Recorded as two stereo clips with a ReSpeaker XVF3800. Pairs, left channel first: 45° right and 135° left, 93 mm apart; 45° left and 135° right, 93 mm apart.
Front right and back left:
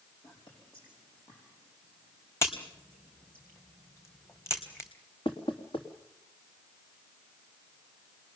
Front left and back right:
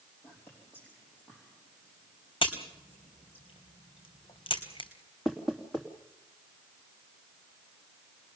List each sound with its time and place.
0.2 s whispering: 25° right, 4.5 m
2.4 s a crack: 20° left, 3 m
5.2 s knocking: 40° right, 3 m